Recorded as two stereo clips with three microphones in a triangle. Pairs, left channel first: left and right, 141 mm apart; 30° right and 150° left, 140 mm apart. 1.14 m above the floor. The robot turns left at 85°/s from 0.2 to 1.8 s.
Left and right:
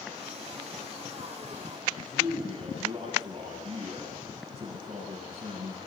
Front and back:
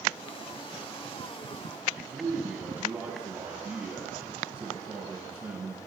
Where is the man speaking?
135° right, 7.5 m.